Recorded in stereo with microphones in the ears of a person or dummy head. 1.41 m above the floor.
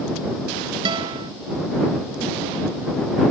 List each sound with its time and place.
0.8 s a guitar: 25° right (ahead or behind)